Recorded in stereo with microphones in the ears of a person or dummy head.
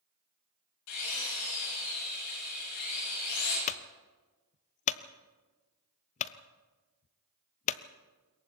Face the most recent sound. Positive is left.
turn(degrees=40)  # may be behind; listen again after turning